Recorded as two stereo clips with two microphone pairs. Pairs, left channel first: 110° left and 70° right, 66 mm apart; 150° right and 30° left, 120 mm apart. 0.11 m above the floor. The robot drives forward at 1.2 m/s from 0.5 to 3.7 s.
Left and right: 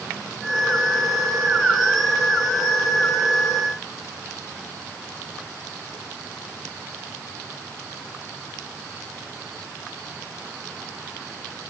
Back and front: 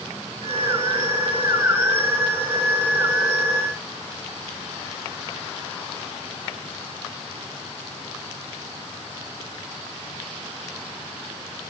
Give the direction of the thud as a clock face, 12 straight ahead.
No thud in this recording.